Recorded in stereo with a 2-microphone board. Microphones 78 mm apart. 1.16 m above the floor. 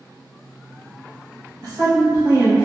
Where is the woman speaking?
50° right (ahead or behind), 0.9 m; by 2.6 s 25° right (ahead or behind), 1.8 m.